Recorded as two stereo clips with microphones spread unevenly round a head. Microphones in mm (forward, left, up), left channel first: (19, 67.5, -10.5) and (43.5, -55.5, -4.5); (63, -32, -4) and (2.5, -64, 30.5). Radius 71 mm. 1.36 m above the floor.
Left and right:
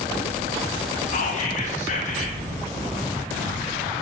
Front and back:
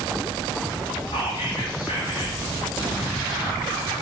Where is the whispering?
75° left, 1.8 m.